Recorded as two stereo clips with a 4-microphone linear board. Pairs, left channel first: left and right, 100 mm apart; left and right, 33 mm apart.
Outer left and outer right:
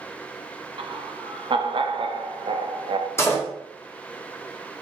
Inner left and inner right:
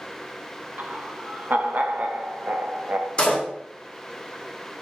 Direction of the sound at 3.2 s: 25° left (ahead or behind).